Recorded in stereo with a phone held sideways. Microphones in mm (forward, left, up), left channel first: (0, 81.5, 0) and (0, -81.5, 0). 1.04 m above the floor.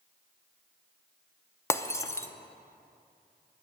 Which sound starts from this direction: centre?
Breaking glass, at 1.7 s.